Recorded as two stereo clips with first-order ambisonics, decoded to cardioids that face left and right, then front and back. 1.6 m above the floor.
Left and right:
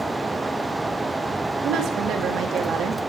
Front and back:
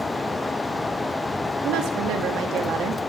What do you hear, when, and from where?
1.6 s a woman speaking: 140° right, 2.5 m